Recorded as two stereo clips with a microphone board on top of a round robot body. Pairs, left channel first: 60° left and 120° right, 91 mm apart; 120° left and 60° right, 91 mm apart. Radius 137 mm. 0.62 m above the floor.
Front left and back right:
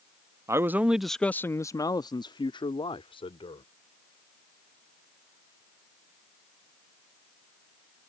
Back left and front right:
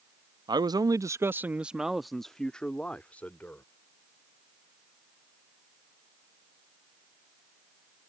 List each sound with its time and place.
0.5 s a man speaking: 75° right; by 3.6 s 45° left